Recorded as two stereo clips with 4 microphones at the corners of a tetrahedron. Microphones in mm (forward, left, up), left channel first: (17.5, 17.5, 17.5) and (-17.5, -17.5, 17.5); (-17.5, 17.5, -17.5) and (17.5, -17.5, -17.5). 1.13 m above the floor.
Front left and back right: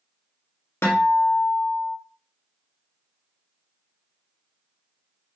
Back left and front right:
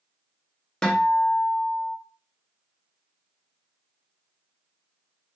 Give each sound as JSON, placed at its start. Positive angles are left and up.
{"t": 0.8, "sound": "a guitar", "azimuth_deg": 60, "distance_m": 0.7}